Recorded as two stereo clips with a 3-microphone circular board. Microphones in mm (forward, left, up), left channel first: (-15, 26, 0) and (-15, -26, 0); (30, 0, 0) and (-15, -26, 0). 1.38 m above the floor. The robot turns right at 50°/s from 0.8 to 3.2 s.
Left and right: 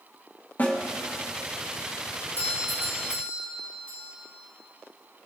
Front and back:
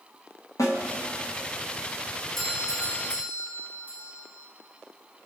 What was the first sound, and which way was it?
A snare drum, 35° left.